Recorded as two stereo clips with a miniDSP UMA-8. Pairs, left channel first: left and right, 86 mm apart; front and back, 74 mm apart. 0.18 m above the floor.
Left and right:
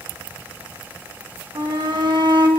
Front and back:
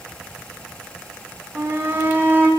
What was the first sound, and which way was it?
A shout, 115° right.